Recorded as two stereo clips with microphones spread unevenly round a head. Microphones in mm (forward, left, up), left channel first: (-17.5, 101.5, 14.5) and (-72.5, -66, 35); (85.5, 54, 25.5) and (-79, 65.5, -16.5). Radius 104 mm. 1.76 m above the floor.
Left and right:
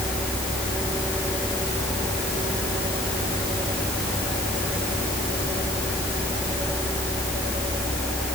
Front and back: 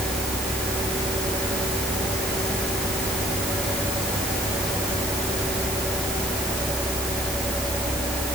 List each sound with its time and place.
Only background noise.